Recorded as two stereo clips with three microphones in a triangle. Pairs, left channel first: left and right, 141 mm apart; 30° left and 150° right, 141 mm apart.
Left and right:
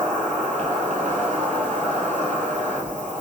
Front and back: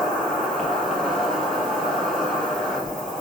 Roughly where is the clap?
I don't hear a clap.